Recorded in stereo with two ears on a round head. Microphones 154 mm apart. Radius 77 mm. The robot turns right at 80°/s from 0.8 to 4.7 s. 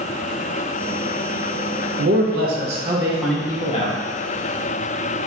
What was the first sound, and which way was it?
A man speaking, 100° right.